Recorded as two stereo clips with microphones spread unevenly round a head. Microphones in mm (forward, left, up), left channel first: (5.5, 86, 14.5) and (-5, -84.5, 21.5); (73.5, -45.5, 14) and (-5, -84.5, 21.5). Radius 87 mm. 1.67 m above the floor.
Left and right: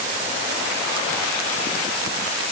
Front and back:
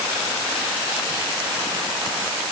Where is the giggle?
No giggle in this recording.